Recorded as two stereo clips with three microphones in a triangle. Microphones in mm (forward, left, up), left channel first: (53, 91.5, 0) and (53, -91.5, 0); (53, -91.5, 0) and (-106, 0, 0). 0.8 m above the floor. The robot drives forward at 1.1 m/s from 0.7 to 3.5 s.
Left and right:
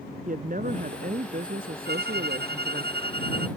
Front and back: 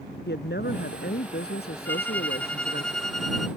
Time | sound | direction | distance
0.3 | a woman speaking | 50° right | ?
1.9 | a violin | 110° right | ?